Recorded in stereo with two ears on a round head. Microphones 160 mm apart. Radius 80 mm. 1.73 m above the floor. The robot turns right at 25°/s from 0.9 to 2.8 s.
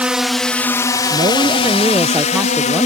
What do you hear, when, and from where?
0.0 s a drone: 5° right (ahead or behind); by 2.9 s 45° left (ahead or behind)
1.1 s a woman speaking: 50° right; by 2.9 s 5° right